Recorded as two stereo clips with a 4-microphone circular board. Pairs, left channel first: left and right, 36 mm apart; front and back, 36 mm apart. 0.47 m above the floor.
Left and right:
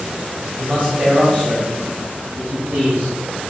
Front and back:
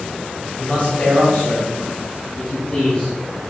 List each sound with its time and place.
0.6 s a man speaking: 40° right, 2 m; by 3.2 s 75° right, 2.5 m